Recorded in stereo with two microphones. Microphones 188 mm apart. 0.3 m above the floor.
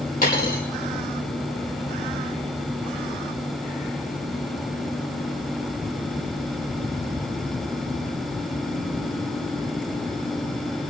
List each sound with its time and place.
0.2 s a dropped coin: 50° left (ahead or behind), 5 m